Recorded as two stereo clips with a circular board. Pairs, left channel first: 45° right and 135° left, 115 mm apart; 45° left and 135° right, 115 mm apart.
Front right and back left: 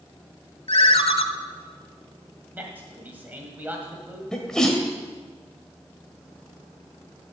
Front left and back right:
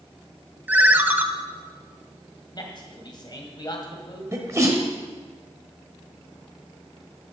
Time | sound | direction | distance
0.7 | a ringtone | 60° right | 0.7 m
2.5 | a man speaking | 70° left | 1.8 m
4.3 | a sneeze | 120° right | 1.2 m